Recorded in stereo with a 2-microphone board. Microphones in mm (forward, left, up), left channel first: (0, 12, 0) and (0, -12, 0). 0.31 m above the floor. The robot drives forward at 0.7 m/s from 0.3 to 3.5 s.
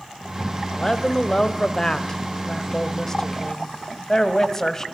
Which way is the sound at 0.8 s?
25° left (ahead or behind).